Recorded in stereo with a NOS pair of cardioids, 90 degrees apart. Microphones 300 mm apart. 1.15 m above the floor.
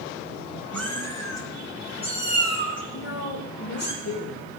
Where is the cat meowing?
5° left, 4 m; by 3.9 s 35° left, 5 m.